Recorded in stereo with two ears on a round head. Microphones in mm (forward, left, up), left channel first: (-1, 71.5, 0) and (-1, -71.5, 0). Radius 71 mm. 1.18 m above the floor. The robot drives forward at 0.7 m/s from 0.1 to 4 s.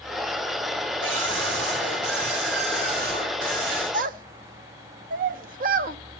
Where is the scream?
85° right, 4 m; by 3.8 s 60° right (ahead or behind), 4.5 m.